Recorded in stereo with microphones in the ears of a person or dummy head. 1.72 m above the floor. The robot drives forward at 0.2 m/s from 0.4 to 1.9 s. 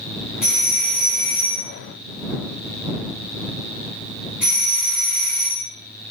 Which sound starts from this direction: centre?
A doorbell, at 0.4 s.